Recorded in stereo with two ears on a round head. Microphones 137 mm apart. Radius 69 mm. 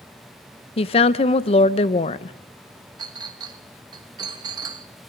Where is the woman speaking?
35° left (ahead or behind), 0.6 m.